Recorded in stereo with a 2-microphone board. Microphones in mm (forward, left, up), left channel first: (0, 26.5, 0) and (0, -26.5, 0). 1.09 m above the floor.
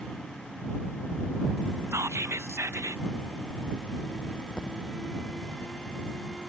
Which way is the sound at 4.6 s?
15° left (ahead or behind).